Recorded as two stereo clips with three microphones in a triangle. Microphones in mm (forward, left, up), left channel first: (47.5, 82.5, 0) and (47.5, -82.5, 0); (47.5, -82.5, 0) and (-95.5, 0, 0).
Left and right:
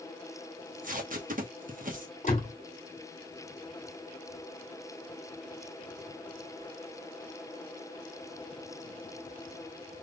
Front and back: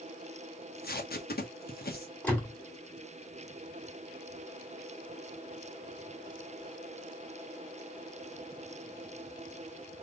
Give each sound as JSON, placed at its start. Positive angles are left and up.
{"t": 0.6, "sound": "tape being pulled", "azimuth_deg": -55, "distance_m": 1.0}
{"t": 2.2, "sound": "a door slam", "azimuth_deg": 50, "distance_m": 1.9}